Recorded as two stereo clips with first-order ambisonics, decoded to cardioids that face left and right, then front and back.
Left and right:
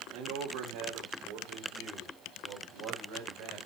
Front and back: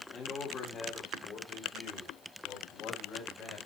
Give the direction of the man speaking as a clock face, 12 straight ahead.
2 o'clock.